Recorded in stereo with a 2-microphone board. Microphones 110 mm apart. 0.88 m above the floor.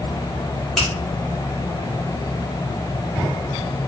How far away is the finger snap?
About 2.5 m.